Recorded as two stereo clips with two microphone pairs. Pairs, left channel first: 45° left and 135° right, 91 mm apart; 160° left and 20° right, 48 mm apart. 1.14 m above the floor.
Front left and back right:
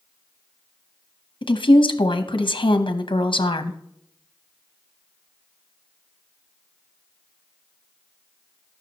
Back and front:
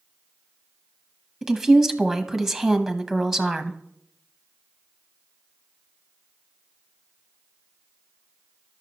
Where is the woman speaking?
65° left, 0.9 m.